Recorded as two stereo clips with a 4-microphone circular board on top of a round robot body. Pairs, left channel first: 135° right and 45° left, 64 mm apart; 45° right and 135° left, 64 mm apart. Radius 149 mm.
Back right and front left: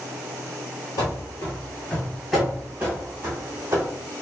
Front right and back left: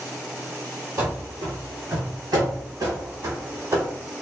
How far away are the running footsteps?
About 0.8 m.